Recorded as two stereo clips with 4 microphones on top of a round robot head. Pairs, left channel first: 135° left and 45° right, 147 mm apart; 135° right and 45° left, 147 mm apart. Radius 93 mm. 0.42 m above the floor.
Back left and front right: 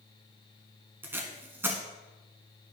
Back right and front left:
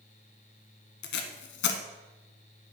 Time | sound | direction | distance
1.0 | tape being pulled | 125° right | 0.9 m